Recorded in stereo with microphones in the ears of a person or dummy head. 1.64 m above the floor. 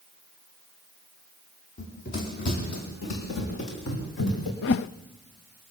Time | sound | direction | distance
1.8 | running footsteps | 45° left (ahead or behind) | 3.5 m
4.6 | a whoosh | 60° left (ahead or behind) | 0.5 m